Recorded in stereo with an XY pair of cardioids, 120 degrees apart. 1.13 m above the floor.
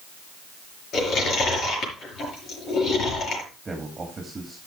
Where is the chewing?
55° left, 5.5 m.